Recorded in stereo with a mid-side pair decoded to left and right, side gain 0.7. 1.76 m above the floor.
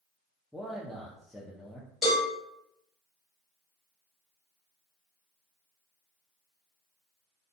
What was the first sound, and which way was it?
A man speaking, straight ahead.